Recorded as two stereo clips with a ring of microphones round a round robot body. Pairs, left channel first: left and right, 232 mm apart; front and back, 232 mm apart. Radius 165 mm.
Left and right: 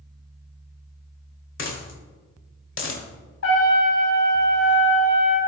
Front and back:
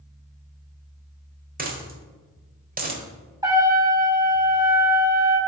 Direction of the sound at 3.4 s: 105° left.